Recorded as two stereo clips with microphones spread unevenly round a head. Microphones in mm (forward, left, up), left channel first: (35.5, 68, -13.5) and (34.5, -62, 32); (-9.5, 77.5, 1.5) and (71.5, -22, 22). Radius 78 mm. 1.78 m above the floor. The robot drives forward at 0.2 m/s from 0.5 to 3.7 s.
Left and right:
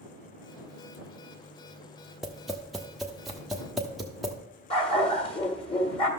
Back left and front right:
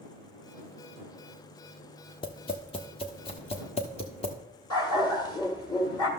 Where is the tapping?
170° right, 0.6 m; by 4.3 s 175° right, 0.9 m.